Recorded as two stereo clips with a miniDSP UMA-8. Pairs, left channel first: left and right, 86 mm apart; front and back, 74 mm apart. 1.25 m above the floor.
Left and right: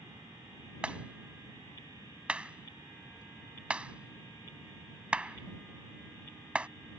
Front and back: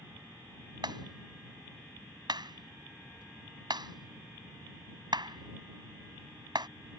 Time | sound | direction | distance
0.8 | a clap | 165° right | ?